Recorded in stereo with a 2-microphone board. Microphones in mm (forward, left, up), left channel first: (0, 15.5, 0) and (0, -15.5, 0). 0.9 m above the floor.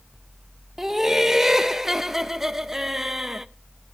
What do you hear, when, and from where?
0.8 s laughter: 15° right (ahead or behind), 0.6 m